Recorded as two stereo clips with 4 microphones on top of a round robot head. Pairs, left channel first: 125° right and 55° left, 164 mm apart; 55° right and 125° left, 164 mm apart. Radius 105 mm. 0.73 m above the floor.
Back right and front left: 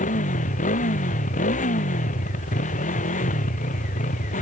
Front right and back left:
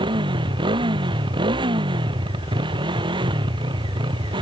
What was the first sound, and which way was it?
A motorcycle, 170° right.